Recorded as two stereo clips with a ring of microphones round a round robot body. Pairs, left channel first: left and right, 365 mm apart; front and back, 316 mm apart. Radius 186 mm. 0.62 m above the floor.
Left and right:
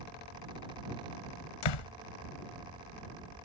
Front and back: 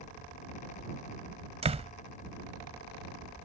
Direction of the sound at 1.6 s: 110° left.